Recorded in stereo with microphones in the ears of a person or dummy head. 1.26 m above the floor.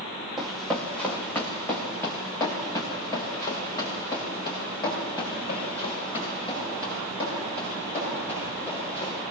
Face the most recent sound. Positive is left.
turn(degrees=30)  # may be behind; listen again after turning